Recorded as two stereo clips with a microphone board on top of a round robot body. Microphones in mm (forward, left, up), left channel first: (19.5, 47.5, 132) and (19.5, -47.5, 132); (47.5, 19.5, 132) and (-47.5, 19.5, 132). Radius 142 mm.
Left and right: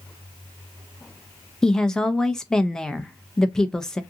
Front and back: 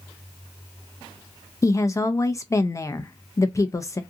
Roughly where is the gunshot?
No gunshot in this recording.